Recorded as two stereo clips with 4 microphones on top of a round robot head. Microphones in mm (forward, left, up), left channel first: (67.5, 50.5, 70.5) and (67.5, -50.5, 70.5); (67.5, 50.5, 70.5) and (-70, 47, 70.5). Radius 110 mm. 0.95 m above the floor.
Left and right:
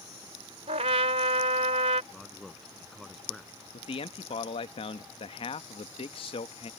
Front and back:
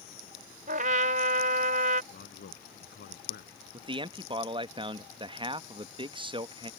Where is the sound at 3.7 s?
130° left.